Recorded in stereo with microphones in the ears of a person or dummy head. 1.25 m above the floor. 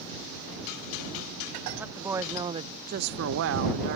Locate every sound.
1.8 s a woman speaking: 10° right (ahead or behind); by 4.0 s 55° right (ahead or behind)